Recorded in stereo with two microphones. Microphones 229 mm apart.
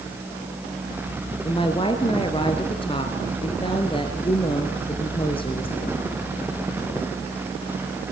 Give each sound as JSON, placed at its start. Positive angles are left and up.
{"t": 1.4, "sound": "a woman speaking", "side_deg": 25, "distance_m": 2.0}